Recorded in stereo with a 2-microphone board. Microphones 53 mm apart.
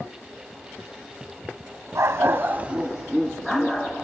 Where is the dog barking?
65° right (ahead or behind), 0.9 m; by 3.9 s 15° left (ahead or behind), 1.9 m.